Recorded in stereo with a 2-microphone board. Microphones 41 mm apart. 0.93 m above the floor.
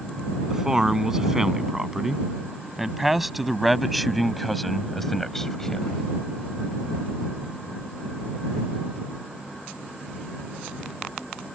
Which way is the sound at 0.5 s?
15° right (ahead or behind).